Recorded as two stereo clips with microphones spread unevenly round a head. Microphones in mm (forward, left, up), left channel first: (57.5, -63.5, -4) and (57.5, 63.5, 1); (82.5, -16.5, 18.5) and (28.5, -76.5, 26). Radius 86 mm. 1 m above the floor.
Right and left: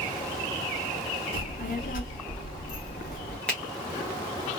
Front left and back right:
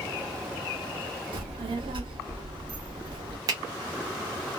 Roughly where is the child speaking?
Behind right.